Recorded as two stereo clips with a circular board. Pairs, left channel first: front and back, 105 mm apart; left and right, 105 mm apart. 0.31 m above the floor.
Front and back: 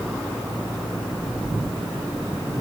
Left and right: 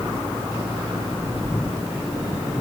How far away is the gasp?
No gasp in this recording.